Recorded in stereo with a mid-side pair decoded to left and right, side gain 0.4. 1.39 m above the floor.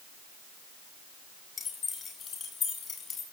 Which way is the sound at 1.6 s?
55° left.